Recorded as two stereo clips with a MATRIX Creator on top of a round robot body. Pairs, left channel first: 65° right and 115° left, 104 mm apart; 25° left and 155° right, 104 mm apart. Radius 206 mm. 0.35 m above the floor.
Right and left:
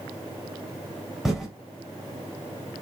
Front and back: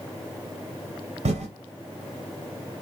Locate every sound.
1.2 s typing on a keyboard: 160° right, 1.2 m